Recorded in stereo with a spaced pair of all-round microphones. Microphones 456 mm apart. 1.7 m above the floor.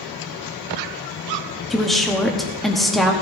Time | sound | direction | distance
1.7 | a woman speaking | centre (ahead or behind) | 1.1 m